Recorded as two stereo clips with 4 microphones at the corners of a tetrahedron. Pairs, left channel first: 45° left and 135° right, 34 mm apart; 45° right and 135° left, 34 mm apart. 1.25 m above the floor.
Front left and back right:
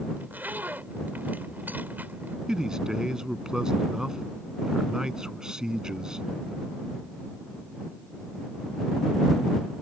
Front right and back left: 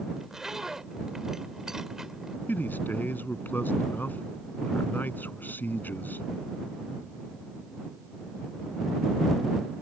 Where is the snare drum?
I don't hear a snare drum.